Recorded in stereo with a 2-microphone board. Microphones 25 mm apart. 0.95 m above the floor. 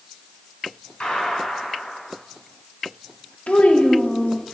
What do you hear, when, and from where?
1.0 s a gunshot: 40° left (ahead or behind), 2.5 m
3.5 s a child speaking: 70° left (ahead or behind), 1.0 m